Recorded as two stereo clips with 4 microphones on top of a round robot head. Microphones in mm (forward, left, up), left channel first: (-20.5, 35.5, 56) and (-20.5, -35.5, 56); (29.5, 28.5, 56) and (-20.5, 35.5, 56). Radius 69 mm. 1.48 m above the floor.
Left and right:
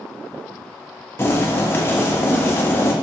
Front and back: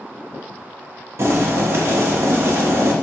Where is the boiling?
145° left, 0.7 m.